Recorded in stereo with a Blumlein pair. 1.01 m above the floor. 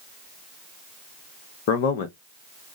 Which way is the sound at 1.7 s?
50° left.